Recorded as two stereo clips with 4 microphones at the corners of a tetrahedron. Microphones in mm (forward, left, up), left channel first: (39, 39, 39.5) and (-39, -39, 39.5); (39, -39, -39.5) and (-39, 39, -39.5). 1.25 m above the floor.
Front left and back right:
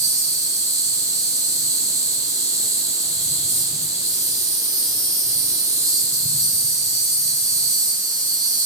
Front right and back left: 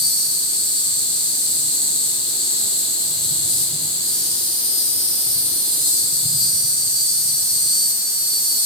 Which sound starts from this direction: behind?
An insect, at 0.0 s.